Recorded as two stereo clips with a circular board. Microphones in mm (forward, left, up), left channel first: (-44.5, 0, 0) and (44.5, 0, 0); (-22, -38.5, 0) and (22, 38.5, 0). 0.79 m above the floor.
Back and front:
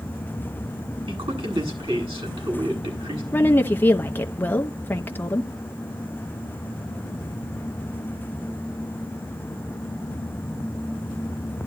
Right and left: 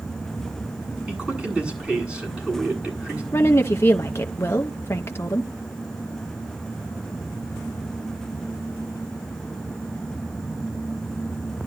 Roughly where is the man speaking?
Ahead.